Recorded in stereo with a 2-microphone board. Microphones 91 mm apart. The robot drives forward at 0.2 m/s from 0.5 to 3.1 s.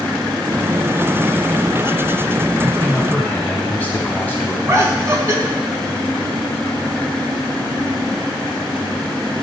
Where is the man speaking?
20° left (ahead or behind), 1.2 m.